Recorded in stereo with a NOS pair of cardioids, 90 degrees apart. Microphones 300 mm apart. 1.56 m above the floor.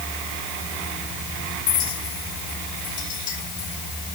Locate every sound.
1.7 s a clink: 70° left